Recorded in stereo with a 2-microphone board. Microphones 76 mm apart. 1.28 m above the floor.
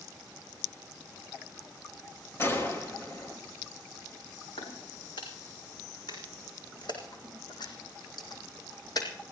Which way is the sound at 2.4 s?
35° left (ahead or behind).